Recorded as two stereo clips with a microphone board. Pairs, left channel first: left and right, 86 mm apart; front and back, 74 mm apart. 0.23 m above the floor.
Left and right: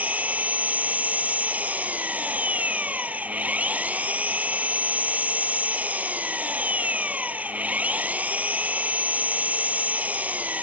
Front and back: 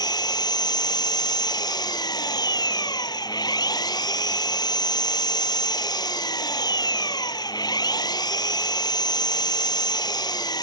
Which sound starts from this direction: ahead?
An engine running, at 0.0 s.